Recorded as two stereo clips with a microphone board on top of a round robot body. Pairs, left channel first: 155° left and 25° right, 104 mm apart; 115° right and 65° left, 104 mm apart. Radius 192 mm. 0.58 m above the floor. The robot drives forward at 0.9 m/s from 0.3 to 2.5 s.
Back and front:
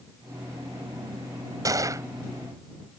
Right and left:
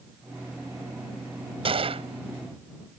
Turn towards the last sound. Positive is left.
turn(degrees=45)